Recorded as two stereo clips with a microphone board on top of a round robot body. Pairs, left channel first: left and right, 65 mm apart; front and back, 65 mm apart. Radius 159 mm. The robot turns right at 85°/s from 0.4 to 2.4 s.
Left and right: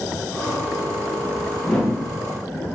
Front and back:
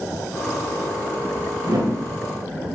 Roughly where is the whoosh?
Behind.